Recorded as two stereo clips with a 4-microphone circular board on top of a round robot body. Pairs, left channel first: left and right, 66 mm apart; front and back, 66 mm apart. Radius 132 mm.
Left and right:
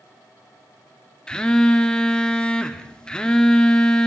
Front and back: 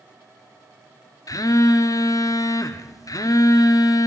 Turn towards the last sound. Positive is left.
turn(degrees=15)